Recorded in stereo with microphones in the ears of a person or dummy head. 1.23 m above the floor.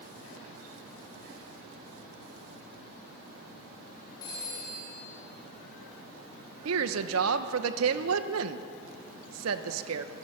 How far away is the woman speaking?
About 0.9 m.